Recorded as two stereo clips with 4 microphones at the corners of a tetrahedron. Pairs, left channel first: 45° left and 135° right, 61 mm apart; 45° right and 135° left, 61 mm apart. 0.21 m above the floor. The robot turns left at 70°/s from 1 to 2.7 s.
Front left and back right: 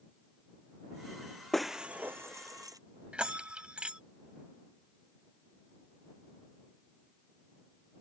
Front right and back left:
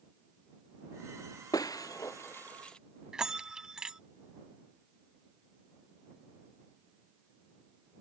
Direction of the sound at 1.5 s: 40° right.